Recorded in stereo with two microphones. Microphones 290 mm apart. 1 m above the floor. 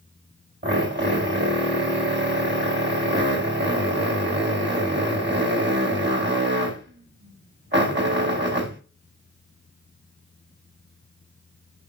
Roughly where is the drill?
Right.